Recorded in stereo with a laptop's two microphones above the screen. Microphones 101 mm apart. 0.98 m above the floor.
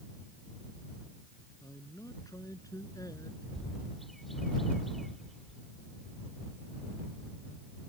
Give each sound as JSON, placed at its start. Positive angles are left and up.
{"t": 1.6, "sound": "a man speaking", "side_deg": 35}
{"t": 3.5, "sound": "a bird", "side_deg": 0}